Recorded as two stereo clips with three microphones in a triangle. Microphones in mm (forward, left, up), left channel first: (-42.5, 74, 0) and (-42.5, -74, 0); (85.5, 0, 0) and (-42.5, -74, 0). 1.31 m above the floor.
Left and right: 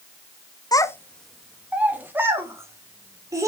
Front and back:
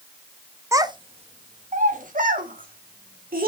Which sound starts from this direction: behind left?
A child speaking, at 0.7 s.